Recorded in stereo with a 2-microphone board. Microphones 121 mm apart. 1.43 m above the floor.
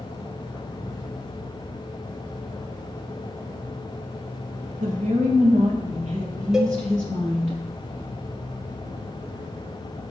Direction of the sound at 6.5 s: 5° right (ahead or behind).